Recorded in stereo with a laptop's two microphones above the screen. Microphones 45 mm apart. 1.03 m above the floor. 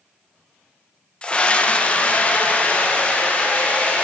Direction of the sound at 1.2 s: 20° left (ahead or behind).